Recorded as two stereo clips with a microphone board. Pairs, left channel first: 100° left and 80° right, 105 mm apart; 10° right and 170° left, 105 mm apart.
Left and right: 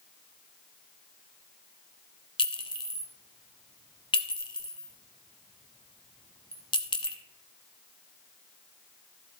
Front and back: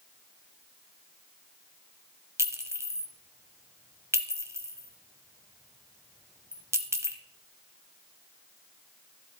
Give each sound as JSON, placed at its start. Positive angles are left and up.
{"t": 2.4, "sound": "a clink", "azimuth_deg": 110, "distance_m": 0.9}